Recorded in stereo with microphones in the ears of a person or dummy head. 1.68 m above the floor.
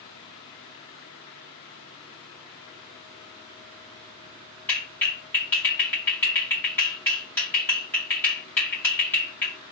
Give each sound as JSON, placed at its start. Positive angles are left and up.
{"t": 4.7, "sound": "a clap", "side_deg": 10, "distance_m": 2.0}